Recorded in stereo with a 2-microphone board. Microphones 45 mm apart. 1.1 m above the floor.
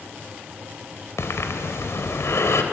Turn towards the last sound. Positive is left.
turn(degrees=80)